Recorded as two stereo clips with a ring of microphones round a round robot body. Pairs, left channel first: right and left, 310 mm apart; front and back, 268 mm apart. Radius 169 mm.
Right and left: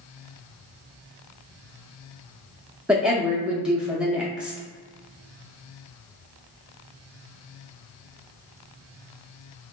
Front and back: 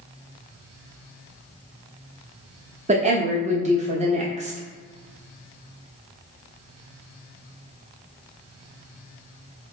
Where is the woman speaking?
175° left, 0.7 m.